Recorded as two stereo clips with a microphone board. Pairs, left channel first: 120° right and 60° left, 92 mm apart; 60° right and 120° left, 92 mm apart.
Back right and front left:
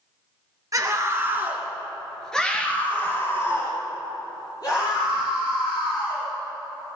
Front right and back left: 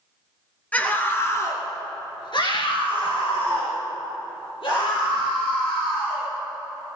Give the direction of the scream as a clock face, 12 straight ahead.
12 o'clock.